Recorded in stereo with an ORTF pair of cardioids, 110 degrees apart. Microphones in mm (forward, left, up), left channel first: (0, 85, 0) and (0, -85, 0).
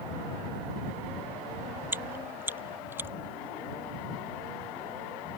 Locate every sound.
1.9 s chewing: 10° right